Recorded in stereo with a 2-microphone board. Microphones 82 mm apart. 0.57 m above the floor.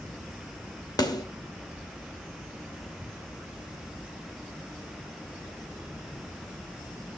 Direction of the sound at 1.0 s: 55° left (ahead or behind).